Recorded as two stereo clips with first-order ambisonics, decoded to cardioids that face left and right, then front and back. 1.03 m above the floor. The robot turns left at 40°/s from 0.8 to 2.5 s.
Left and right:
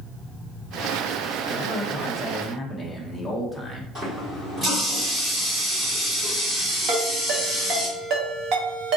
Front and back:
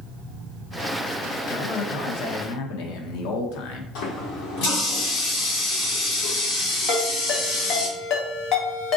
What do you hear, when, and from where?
1.5 s a man speaking: 45° left, 0.7 m; by 3.9 s 5° left, 0.7 m
4.0 s a running tap: 20° right, 1.7 m
6.9 s a ringtone: 45° right, 1.0 m